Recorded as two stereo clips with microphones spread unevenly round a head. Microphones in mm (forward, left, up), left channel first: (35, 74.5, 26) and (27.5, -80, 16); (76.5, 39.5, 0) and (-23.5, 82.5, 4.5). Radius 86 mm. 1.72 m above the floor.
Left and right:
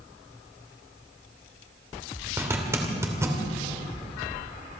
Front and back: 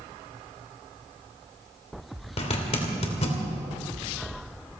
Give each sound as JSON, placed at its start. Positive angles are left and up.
{"t": 2.4, "sound": "a zipper", "azimuth_deg": -20, "distance_m": 2.5}